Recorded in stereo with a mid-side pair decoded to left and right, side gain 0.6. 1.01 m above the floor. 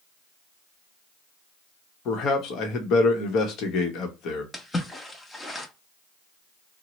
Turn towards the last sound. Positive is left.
turn(degrees=15)